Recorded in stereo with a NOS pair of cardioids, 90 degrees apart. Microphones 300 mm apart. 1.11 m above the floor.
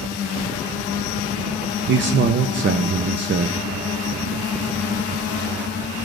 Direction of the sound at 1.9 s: 40° right.